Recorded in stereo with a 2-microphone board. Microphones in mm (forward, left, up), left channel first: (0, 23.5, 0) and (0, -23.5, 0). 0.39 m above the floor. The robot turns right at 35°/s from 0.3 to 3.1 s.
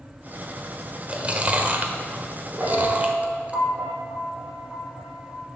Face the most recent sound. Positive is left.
turn(degrees=5)  # may be behind; listen again after turning